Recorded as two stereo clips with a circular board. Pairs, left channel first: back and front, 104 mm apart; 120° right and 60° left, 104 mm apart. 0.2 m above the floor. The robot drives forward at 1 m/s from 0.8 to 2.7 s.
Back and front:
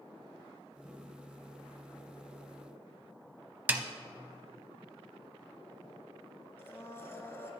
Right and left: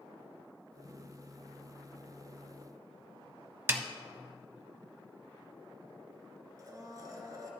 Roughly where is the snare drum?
Ahead left.